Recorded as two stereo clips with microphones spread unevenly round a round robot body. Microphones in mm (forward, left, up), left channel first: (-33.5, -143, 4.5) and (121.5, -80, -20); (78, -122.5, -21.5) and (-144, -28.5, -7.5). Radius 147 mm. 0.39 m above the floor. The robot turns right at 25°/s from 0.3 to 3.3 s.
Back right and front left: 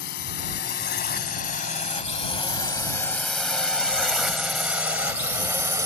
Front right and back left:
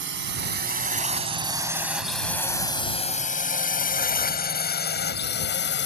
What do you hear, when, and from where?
0.0 s a drone: 170° right; by 5.9 s 45° right